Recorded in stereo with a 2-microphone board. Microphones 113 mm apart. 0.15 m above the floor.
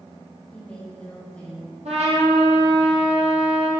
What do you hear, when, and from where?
0.5 s a woman speaking: 10° left (ahead or behind), 5.5 m
1.9 s a trumpet: 75° right (ahead or behind), 5 m